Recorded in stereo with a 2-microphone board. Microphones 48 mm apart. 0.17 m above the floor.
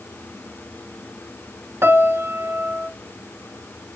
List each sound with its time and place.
1.8 s a piano: 55° right (ahead or behind), 0.7 m